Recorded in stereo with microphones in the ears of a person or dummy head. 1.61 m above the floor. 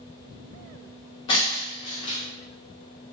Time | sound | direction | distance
1.3 | breaking glass | 20° left (ahead or behind) | 0.7 m